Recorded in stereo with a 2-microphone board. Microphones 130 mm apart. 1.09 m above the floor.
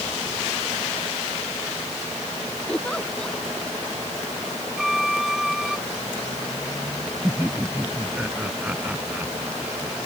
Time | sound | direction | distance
2.7 | a giggle | 5° left (ahead or behind) | ?
4.8 | a violin | centre (ahead or behind) | ?
7.2 | laughter | 10° right (ahead or behind) | ?